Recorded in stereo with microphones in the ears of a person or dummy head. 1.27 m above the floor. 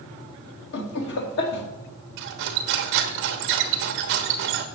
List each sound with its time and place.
0.7 s laughter: 60° left (ahead or behind), 2.5 m
2.2 s cutlery clinking: 55° right (ahead or behind), 0.9 m